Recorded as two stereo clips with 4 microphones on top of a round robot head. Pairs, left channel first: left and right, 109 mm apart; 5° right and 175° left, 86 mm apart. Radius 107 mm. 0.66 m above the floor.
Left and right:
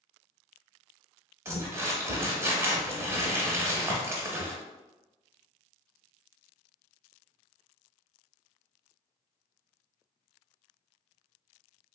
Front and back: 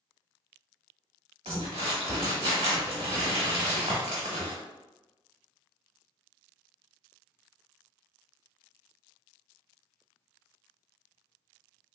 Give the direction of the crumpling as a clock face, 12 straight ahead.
5 o'clock.